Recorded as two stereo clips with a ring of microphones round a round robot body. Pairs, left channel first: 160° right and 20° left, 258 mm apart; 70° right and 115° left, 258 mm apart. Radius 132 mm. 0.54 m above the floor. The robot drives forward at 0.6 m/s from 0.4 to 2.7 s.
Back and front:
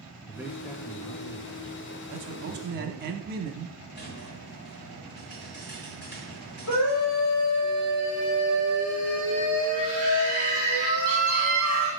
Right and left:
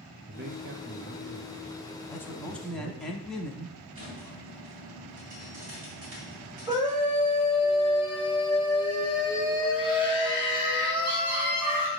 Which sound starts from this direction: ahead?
A man speaking, at 2.1 s.